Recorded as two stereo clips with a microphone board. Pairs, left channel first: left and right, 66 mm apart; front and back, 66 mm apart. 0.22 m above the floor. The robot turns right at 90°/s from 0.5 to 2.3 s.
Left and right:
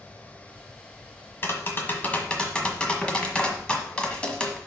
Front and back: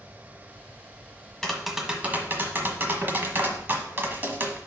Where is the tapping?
75° left, 1.3 m; by 4.6 s 155° left, 1.3 m.